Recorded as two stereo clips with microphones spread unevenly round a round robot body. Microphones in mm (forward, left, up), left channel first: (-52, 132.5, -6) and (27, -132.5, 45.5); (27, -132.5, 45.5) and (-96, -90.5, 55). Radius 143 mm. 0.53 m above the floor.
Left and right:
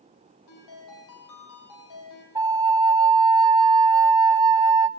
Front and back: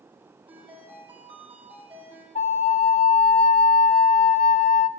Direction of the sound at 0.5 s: 90° left.